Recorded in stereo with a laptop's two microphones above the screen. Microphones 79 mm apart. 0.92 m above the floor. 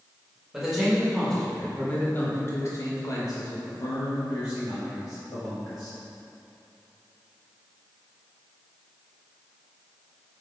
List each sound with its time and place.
0.5 s a man speaking: 5° right (ahead or behind), 1.5 m; by 5.9 s 50° left (ahead or behind), 2.5 m